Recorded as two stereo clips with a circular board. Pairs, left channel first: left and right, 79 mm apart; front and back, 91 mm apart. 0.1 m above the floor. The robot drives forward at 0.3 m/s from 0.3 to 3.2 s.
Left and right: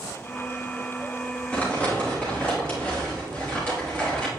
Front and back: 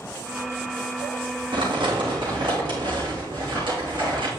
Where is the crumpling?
160° left, 2.5 m.